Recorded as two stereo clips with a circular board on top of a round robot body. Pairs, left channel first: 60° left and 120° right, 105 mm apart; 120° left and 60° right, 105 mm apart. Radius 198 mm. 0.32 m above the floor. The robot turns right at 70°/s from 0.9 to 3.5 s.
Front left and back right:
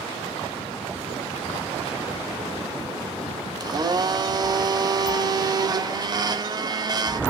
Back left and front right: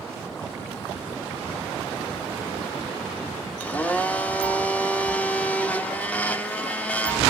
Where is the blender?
165° right, 0.7 m.